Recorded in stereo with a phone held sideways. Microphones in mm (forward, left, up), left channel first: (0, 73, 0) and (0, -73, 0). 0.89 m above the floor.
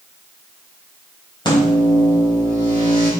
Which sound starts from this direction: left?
A microwave, at 1.4 s.